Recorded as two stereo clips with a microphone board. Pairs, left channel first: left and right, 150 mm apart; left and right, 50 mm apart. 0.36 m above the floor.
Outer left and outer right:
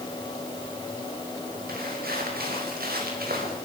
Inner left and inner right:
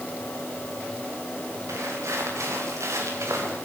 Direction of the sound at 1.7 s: 90° right.